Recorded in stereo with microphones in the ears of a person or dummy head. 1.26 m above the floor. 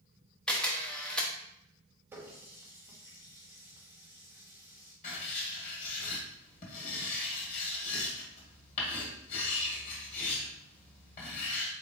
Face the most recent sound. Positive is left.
turn(degrees=45)  # may be behind; listen again after turning